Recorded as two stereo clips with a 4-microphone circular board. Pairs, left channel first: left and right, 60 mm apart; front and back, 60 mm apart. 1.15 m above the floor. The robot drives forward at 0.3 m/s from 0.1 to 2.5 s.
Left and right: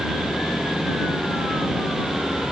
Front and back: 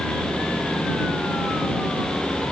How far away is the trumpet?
No trumpet in this recording.